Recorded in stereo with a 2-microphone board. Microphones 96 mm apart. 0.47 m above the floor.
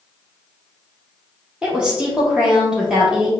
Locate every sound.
1.6 s a woman speaking: 10° right (ahead or behind), 1.3 m